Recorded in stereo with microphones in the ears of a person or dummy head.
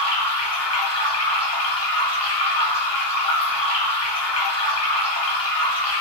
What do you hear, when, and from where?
0.0 s running water: 25° left (ahead or behind), 1.1 m